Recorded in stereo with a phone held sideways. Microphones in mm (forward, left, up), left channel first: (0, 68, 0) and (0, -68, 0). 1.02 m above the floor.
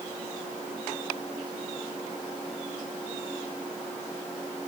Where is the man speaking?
I don't hear a man speaking.